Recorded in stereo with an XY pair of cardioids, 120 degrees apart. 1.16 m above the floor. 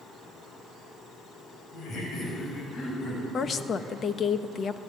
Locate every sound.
1.7 s laughter: 50° left, 7 m; by 4.0 s 35° left, 9 m
3.3 s a woman speaking: 40° left, 1.3 m